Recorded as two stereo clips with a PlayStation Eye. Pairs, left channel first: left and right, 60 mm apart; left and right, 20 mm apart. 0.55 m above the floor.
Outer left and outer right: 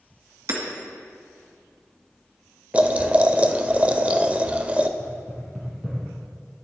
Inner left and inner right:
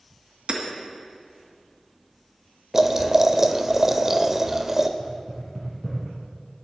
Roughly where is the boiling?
Right.